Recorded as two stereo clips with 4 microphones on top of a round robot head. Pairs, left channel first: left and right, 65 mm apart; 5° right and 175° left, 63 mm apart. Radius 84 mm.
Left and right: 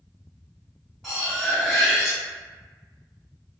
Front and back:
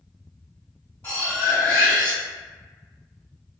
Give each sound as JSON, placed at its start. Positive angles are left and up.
{"t": 1.0, "sound": "cutlery clinking", "azimuth_deg": 10, "distance_m": 1.1}